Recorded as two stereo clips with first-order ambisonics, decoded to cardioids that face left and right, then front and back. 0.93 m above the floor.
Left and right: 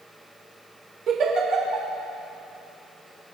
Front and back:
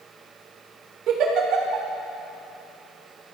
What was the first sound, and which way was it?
A giggle, 140° right.